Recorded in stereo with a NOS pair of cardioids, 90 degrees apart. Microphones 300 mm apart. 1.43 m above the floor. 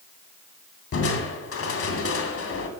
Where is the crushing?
50° left, 2.5 m.